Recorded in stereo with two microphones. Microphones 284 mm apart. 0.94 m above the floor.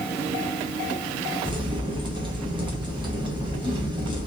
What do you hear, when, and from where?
1.4 s a crack: 15° right (ahead or behind), 1.1 m